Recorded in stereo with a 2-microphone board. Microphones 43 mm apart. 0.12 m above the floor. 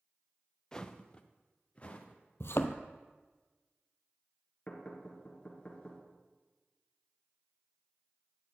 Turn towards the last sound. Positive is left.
turn(degrees=30)  # may be behind; listen again after turning